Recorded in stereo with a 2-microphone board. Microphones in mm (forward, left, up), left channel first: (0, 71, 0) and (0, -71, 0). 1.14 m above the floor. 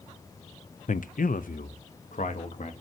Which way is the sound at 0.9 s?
60° left (ahead or behind).